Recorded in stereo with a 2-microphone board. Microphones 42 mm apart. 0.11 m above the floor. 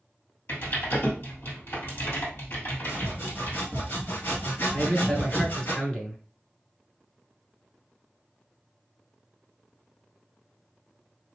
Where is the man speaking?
20° left (ahead or behind), 1.2 m.